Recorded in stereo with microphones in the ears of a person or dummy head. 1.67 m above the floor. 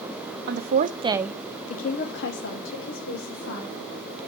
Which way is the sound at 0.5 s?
60° right (ahead or behind).